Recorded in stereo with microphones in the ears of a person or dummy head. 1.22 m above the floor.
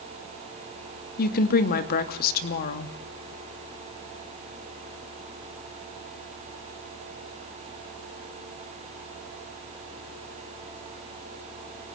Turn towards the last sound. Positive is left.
turn(degrees=55)  # may be behind; listen again after turning